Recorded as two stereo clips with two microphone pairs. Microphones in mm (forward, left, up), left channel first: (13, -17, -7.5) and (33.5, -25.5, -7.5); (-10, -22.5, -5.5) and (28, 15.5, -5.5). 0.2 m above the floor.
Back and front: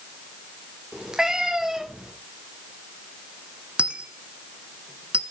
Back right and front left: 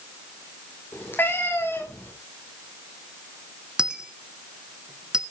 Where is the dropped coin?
30° right, 0.9 m.